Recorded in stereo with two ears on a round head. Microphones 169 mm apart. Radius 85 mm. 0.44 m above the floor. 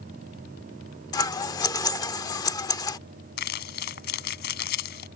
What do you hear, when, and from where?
1.1 s scissors: 20° left (ahead or behind)
3.4 s crumpling: 55° left (ahead or behind)